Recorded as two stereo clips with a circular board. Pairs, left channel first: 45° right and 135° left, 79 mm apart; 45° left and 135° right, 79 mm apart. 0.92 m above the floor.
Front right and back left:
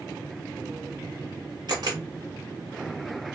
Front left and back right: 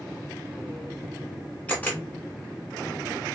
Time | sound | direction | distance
1.7 | a camera shutter | 110° left | 1.2 m